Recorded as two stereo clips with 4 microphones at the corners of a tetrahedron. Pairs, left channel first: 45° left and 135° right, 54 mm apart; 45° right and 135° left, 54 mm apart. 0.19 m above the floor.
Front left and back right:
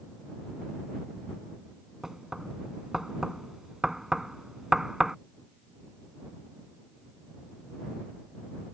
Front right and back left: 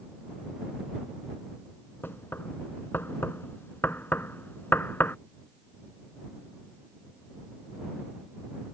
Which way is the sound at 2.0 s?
60° right.